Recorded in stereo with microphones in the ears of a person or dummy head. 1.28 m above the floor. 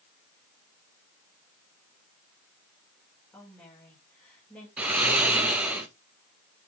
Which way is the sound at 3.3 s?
Centre (ahead or behind).